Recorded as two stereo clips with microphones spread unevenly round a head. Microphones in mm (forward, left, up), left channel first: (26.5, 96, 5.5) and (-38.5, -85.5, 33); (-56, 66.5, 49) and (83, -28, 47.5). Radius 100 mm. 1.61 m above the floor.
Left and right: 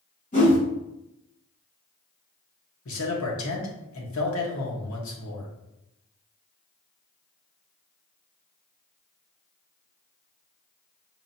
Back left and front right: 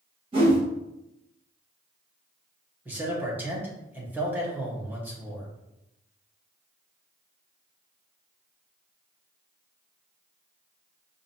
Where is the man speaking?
45° left, 1.1 m.